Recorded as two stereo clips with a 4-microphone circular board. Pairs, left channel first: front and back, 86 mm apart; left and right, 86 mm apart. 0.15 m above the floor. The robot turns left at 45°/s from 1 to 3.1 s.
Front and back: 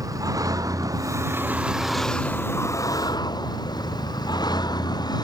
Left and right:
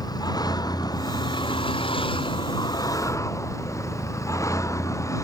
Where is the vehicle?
130° left; by 5.2 s 35° left.